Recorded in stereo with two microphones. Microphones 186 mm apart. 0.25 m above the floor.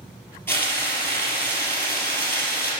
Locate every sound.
0.5 s frying: 10° left (ahead or behind), 3 m